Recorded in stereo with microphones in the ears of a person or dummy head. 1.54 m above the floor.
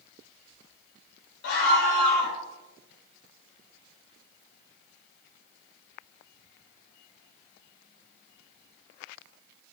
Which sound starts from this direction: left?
A scream, at 1.4 s.